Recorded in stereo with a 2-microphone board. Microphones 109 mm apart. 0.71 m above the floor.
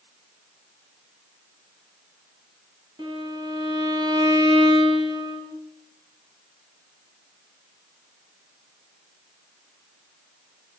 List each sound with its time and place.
3.0 s a violin: 45° right (ahead or behind), 3 m